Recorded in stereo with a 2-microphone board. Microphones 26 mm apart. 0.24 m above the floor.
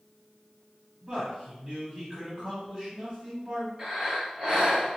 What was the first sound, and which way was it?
A man speaking, 25° right (ahead or behind).